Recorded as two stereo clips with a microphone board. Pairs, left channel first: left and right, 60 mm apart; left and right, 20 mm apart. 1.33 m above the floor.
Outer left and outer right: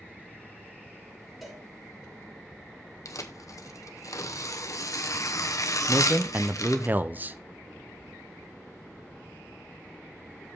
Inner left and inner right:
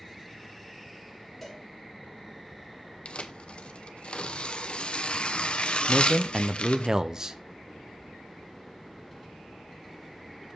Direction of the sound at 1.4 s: 5° left (ahead or behind).